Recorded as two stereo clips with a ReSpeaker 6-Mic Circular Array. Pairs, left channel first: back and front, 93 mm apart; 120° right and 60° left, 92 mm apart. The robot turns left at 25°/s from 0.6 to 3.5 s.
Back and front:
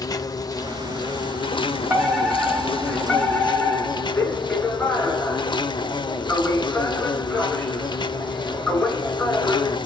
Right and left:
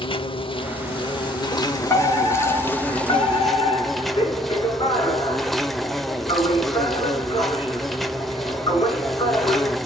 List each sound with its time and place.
0.0 s an insect: 135° right, 0.7 m; by 9.9 s 150° left, 0.7 m
1.9 s a fire alarm: 65° right, 4 m; by 9.8 s 105° right, 4 m